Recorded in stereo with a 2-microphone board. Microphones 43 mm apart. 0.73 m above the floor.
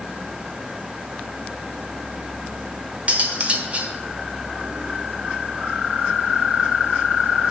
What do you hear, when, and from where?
3.1 s cutlery clinking: 35° right (ahead or behind), 1.2 m